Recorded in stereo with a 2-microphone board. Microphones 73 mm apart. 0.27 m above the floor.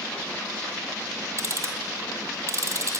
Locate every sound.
1.4 s ticking: 45° right (ahead or behind), 1.7 m